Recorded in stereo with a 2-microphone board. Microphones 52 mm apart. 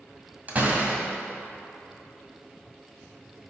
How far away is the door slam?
About 1.5 m.